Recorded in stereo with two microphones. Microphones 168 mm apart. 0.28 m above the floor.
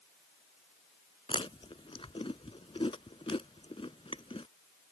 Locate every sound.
1.3 s chewing: 35° left (ahead or behind)